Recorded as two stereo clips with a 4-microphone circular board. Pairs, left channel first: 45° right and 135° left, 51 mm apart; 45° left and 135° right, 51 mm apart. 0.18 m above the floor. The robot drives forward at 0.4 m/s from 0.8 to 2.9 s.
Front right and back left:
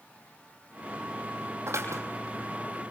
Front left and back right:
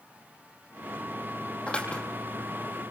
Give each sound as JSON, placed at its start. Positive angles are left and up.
{"t": 1.7, "sound": "scissors", "azimuth_deg": 110, "distance_m": 5.5}